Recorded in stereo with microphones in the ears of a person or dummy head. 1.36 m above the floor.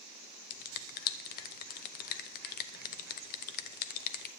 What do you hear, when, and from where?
0.5 s a finger snap: 50° left (ahead or behind), 0.7 m